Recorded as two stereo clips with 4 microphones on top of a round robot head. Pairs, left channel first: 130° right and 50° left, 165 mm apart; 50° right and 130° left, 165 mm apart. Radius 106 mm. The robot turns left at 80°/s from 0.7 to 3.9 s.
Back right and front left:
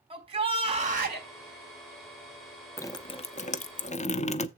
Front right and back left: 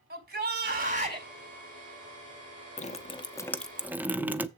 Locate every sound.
0.1 s a shout: 110° left, 4.5 m; by 1.3 s 60° left, 4.5 m
2.8 s dripping: 60° right, 0.8 m; by 4.5 s 155° right, 0.8 m